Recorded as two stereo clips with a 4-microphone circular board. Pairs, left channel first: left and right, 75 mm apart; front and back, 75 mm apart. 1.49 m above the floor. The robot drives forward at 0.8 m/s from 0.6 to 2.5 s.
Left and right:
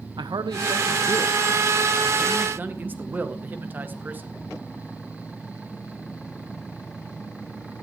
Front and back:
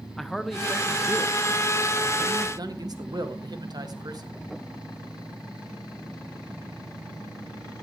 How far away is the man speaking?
About 0.8 m.